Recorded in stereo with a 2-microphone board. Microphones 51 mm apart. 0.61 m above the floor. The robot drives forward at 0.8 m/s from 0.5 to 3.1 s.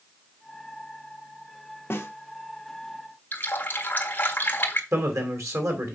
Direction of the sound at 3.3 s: 35° left (ahead or behind).